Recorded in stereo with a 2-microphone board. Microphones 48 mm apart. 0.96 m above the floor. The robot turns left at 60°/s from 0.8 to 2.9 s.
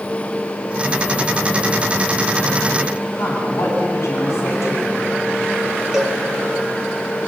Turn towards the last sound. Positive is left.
turn(degrees=-15)  # may be behind; listen again after turning